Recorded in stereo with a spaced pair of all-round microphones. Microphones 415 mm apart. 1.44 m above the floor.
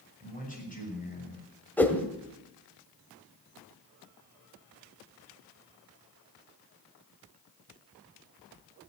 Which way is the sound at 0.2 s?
20° left (ahead or behind).